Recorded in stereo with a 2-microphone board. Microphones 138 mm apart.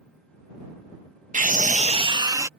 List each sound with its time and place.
1.3 s a scream: 65° right (ahead or behind); by 2.5 s 20° right (ahead or behind)